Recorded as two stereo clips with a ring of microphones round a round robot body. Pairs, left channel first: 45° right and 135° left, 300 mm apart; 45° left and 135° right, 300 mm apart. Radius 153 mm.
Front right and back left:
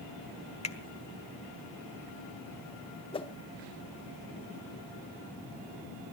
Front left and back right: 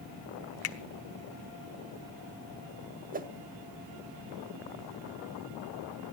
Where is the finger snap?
20° left, 1.2 m.